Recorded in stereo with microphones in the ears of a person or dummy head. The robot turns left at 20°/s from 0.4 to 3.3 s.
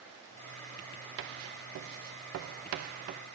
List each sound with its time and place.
1.2 s writing: 70° right (ahead or behind), 0.5 m; by 3.2 s 45° right (ahead or behind), 0.5 m